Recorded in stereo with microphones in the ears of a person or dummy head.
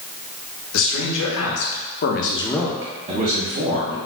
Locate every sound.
0.7 s a man speaking: 75° left (ahead or behind), 1.6 m; by 4.0 s 50° right (ahead or behind), 1.4 m